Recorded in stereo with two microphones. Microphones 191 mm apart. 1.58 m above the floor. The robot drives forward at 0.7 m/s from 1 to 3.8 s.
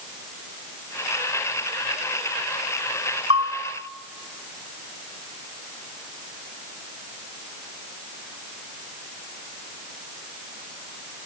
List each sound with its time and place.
3.3 s a bell: 40° right (ahead or behind), 1.8 m